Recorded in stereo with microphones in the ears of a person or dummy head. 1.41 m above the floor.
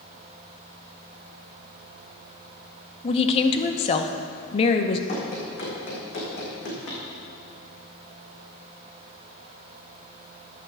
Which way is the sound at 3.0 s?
35° left (ahead or behind).